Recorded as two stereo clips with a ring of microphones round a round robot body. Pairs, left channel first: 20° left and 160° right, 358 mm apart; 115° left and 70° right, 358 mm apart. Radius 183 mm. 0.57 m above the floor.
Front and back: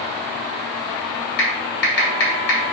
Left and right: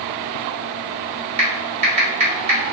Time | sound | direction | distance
1.4 | typing on a keyboard | straight ahead | 1.5 m